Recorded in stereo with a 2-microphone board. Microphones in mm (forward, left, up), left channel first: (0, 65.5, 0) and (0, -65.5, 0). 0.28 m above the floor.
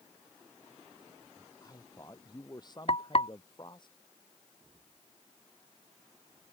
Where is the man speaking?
30° left (ahead or behind); by 3.9 s 35° left (ahead or behind).